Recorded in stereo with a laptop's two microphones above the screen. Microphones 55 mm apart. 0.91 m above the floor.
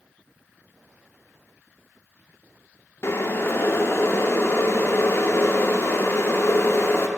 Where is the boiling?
50° left (ahead or behind), 0.6 m.